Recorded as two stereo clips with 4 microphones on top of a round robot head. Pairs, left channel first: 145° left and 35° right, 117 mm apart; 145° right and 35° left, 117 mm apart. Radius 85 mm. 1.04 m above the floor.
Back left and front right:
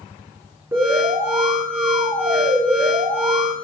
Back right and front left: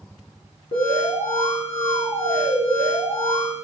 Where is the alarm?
105° right, 4.5 m.